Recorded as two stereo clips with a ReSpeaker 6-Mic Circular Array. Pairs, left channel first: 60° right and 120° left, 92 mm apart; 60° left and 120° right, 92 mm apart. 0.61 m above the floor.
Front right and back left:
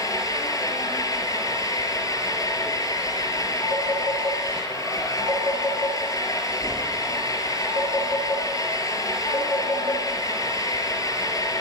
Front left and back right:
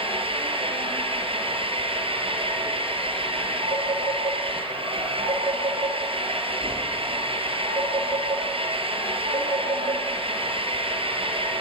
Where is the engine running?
115° right, 5 m.